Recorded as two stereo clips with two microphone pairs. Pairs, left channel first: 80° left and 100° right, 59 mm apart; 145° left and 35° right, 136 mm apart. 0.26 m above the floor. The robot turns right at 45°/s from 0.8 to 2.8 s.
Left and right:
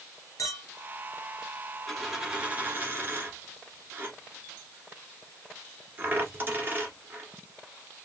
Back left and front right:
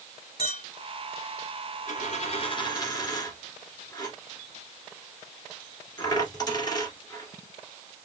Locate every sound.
0.4 s a clink: 105° left, 3.5 m
1.9 s a dropped coin: 165° left, 1.4 m; by 8.1 s 155° right, 1.4 m